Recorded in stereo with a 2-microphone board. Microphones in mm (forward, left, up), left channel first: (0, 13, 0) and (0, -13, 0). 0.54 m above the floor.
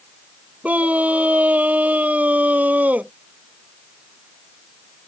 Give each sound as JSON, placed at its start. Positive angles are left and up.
{"t": 0.6, "sound": "a scream", "side_deg": -65}